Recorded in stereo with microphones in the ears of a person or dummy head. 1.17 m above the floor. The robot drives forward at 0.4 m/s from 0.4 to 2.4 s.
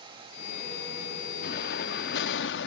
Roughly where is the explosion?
Left.